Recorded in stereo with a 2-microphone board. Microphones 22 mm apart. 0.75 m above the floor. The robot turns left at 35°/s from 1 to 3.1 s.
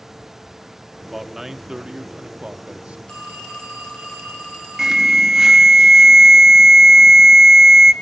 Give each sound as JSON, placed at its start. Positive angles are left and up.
{"t": 1.0, "sound": "a man speaking", "azimuth_deg": -10, "distance_m": 1.1}
{"t": 3.1, "sound": "a phone ringing", "side_deg": 50, "distance_m": 3.0}
{"t": 4.8, "sound": "an alarm", "side_deg": -25, "distance_m": 1.1}